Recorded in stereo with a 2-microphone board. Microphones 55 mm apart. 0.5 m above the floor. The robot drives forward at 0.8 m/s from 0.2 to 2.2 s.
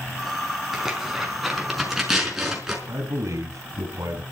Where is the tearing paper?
5° right (ahead or behind), 4.5 m.